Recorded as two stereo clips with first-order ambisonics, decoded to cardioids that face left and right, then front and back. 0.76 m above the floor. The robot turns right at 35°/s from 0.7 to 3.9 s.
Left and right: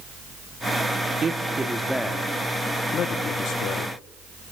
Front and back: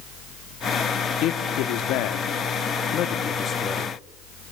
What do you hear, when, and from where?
1.2 s a man speaking: 25° right, 1.2 m; by 4.0 s 70° left, 1.2 m